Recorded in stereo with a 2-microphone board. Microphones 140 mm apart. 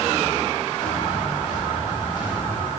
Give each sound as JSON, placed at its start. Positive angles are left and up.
{"t": 0.8, "sound": "footsteps", "side_deg": 30, "distance_m": 7.5}